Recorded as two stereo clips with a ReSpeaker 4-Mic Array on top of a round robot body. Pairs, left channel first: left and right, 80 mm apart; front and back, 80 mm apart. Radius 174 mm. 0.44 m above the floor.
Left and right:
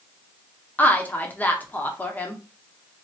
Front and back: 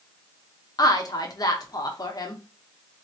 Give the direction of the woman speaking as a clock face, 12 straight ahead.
11 o'clock.